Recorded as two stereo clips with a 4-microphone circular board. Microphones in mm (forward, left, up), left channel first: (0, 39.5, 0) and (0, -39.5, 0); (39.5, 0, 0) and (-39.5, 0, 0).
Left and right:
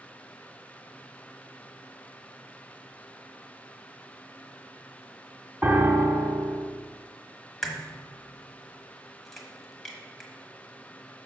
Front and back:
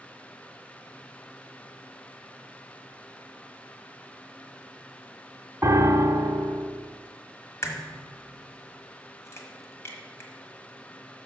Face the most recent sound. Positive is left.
turn(degrees=5)